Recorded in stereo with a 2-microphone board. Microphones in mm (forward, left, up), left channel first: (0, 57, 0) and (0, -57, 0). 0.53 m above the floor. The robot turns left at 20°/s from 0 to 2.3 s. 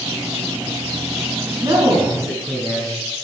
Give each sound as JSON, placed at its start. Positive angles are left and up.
{"t": 1.6, "sound": "a man speaking", "side_deg": -45, "distance_m": 6.0}